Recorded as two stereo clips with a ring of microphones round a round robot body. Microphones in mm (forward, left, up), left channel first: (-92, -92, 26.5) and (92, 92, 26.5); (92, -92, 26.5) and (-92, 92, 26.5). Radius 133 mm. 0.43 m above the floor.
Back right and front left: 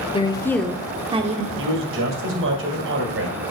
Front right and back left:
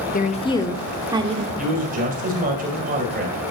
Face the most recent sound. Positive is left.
turn(degrees=80)